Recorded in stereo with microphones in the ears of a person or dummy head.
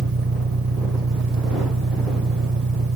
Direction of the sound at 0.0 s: 75° right (ahead or behind).